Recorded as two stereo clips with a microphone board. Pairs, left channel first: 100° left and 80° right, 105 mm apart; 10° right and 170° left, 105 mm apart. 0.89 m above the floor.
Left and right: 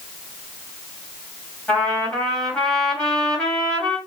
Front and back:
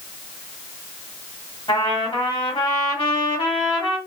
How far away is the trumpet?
About 1.6 m.